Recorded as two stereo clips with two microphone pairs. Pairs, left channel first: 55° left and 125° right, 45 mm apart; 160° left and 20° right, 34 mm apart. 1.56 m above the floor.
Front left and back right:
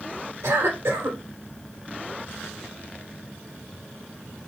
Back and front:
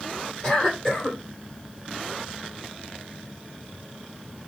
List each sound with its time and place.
0.4 s a cough: 135° right, 2.5 m